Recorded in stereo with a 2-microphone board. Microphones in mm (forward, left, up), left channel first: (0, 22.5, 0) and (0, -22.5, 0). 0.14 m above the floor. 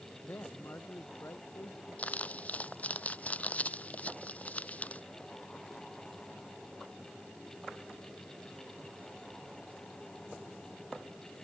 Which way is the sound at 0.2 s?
60° left (ahead or behind).